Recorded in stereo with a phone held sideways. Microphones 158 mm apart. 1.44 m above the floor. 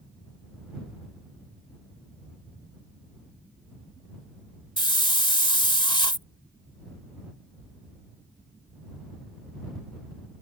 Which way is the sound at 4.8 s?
35° left (ahead or behind).